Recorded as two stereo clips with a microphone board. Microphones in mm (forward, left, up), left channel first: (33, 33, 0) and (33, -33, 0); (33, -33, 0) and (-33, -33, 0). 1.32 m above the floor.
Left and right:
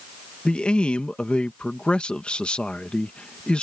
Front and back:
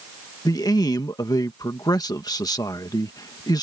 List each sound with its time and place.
0.5 s a man speaking: 15° left